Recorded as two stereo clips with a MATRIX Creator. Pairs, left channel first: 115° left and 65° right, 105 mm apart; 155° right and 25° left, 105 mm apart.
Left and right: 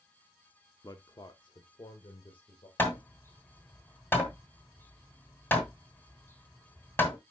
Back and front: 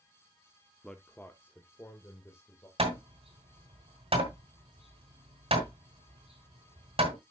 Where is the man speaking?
125° left, 0.7 m; by 2.7 s 145° left, 2.0 m.